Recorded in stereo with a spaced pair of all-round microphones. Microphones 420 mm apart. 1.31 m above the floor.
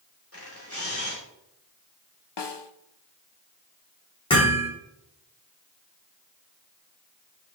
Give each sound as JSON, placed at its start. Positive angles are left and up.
{"t": 0.3, "sound": "a camera shutter", "side_deg": 35, "distance_m": 3.5}
{"t": 2.4, "sound": "a snare drum", "side_deg": 75, "distance_m": 0.8}
{"t": 4.3, "sound": "hammering", "side_deg": 10, "distance_m": 3.5}